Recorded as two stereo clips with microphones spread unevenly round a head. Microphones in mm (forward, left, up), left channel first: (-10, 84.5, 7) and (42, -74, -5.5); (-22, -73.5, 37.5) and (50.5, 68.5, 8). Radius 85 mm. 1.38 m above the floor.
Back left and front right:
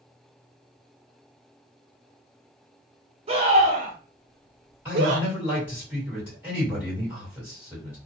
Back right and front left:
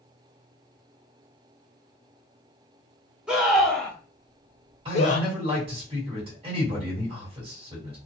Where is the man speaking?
5° left, 2 m.